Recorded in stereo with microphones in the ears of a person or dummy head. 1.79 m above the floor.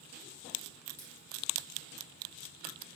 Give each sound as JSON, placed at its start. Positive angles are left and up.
{"t": 1.0, "sound": "a dropped coin", "side_deg": 10, "distance_m": 1.5}